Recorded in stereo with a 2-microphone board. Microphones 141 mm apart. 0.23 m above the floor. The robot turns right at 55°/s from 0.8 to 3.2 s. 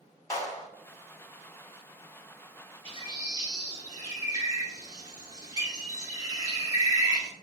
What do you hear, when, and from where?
0.3 s a clap: 25° left (ahead or behind), 1.1 m
2.9 s a bird: 45° right (ahead or behind), 1.0 m; by 7.3 s 30° right (ahead or behind), 1.0 m